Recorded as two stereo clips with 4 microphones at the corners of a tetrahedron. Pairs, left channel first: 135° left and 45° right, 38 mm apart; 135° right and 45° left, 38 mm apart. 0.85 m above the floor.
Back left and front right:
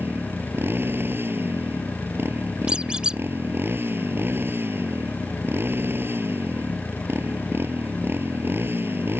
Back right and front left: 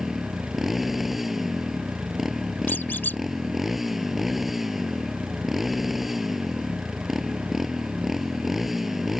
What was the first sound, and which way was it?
A motorcycle, 40° right.